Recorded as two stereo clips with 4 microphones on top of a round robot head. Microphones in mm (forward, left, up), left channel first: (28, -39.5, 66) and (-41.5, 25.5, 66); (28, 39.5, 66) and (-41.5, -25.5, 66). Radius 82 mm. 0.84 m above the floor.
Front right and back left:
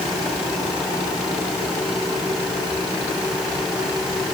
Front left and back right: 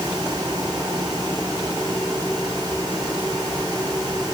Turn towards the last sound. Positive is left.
No sound to turn to.